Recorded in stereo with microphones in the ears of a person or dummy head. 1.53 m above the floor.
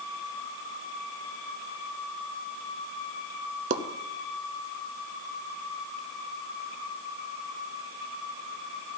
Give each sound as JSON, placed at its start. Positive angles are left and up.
{"t": 3.7, "sound": "a pop", "side_deg": -40, "distance_m": 0.7}